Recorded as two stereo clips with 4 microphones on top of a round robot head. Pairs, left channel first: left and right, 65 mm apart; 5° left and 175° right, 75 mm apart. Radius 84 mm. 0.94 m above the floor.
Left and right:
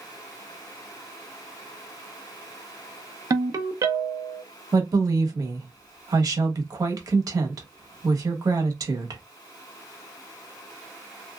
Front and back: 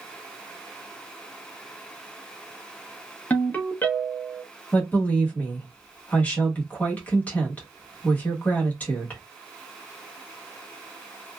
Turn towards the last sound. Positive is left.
turn(degrees=-70)